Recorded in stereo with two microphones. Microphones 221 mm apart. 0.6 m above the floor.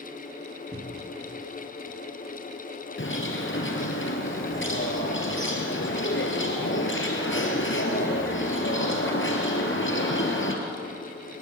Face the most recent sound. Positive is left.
turn(degrees=55)  # may be behind; listen again after turning